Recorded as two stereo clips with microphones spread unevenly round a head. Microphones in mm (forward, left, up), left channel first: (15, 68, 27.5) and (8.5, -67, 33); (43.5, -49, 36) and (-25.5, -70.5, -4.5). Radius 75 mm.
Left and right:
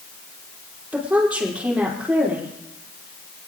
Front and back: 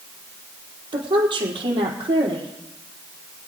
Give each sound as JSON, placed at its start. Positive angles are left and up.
{"t": 0.9, "sound": "a woman speaking", "azimuth_deg": -175, "distance_m": 4.0}